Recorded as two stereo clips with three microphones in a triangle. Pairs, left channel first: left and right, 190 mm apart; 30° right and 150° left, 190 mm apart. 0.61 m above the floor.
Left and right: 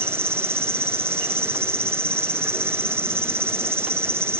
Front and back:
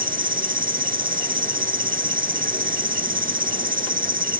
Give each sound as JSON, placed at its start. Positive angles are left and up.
{"t": 0.0, "sound": "an insect", "azimuth_deg": -165}